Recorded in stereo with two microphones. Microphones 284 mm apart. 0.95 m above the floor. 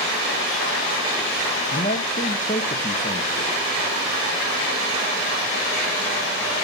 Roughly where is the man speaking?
Left.